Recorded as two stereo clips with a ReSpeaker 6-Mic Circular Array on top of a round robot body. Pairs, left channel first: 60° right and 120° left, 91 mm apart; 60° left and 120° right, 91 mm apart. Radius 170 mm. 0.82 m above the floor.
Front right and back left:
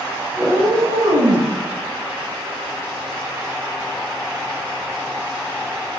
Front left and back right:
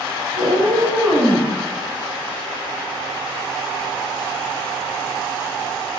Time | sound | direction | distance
0.4 | a cat meowing | 140° right | 0.9 m